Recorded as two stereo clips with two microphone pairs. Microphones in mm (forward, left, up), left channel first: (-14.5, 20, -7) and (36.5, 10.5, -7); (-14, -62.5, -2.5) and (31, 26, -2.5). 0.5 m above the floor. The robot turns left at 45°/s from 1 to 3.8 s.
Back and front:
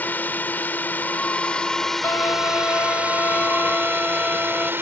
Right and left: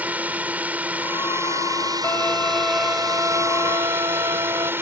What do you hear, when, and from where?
0.0 s a drone: 130° left; by 4.8 s 5° left
2.0 s a violin: straight behind; by 4.7 s 100° left